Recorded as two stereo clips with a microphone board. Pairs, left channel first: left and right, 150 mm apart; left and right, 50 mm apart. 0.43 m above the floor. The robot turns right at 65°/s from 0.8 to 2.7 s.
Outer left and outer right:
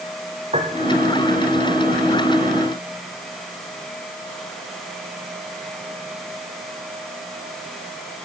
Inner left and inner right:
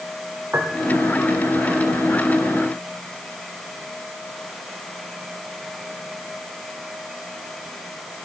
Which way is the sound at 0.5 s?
45° right (ahead or behind).